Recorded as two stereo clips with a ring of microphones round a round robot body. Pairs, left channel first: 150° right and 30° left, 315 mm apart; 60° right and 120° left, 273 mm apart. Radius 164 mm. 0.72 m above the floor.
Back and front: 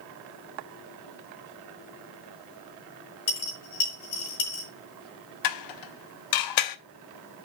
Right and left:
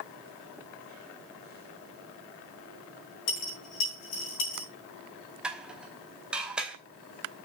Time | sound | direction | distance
3.3 | a dropped coin | 100° right | 4.5 m
5.4 | dishes clattering | 155° right | 0.8 m